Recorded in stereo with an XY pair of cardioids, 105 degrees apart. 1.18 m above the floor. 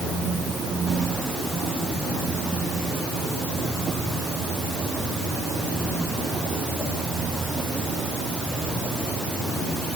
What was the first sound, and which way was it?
Only background noise.